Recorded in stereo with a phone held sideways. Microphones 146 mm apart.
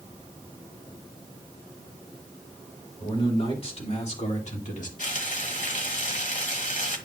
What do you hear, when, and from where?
3.0 s a man speaking: 35° left (ahead or behind), 3 m; by 4.9 s 60° left (ahead or behind), 1.9 m
5.0 s frying: 60° left (ahead or behind), 1.3 m